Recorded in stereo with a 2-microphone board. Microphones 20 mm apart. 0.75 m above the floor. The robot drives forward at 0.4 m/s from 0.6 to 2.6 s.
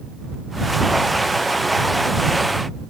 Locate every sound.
Only background noise.